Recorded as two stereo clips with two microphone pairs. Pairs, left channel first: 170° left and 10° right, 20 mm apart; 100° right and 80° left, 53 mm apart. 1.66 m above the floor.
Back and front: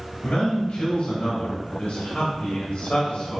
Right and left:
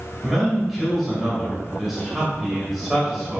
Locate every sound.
0.2 s a man speaking: 170° left, 2.5 m